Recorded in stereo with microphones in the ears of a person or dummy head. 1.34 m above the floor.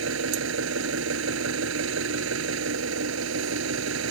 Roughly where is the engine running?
Right.